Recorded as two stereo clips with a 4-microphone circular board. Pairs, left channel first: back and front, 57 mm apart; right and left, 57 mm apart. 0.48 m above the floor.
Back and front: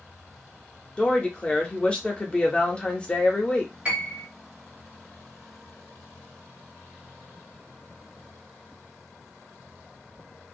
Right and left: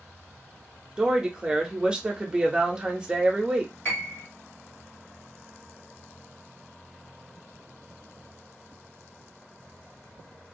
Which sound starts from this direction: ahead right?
A piano, at 3.9 s.